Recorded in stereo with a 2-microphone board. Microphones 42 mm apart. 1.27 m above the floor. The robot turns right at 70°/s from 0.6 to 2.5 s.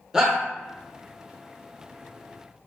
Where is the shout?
15° right (ahead or behind), 0.7 m.